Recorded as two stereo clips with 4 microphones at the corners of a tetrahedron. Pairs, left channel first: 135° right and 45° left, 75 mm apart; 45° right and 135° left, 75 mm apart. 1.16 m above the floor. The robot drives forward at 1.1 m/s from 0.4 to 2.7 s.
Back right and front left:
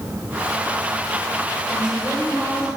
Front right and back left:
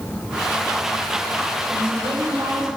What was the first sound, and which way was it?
A woman speaking, 120° left.